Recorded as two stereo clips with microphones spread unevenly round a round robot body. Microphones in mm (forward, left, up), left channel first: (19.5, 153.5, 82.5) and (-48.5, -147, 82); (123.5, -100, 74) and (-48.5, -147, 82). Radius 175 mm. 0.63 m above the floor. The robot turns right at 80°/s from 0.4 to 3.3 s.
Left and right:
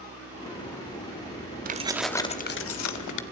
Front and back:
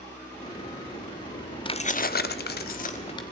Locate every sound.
1.6 s keys jangling: 45° right, 1.1 m; by 3.2 s 80° left, 1.1 m